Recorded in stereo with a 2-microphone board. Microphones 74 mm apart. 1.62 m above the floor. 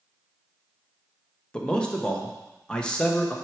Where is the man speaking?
10° left (ahead or behind), 1.0 m.